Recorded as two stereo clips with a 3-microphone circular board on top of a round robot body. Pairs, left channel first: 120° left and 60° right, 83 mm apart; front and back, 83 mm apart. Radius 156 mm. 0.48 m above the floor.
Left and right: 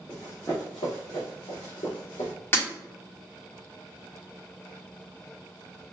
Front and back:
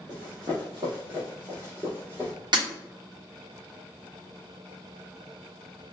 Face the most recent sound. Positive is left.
turn(degrees=180)